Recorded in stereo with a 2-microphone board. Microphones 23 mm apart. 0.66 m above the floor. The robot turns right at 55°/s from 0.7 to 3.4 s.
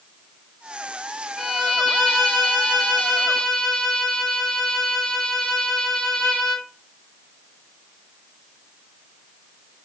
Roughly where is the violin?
Ahead.